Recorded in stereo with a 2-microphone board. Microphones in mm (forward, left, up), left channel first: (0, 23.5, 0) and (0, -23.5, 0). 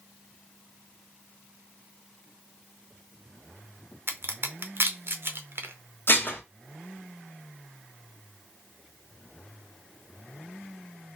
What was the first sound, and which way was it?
A crack, 50° right (ahead or behind).